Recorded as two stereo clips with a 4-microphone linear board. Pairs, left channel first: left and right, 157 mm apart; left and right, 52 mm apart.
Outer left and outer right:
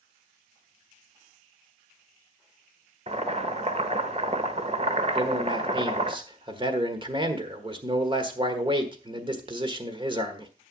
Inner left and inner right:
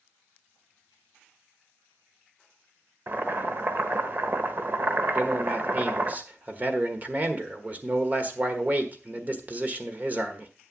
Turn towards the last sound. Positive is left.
turn(degrees=-35)  # may be behind; listen again after turning